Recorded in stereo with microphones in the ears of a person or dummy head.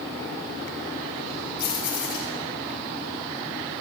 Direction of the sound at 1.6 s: 50° left (ahead or behind).